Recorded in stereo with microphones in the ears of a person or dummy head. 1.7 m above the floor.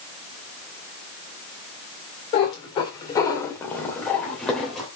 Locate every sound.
2.3 s a cat meowing: 30° left (ahead or behind), 1.9 m; by 4.9 s centre (ahead or behind), 2.5 m